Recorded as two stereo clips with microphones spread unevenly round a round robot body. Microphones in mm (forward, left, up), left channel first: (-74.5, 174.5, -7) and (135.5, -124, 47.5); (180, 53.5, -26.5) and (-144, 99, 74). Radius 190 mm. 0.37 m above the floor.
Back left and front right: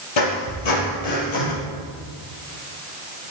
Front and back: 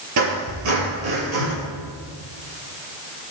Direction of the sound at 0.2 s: 140° left.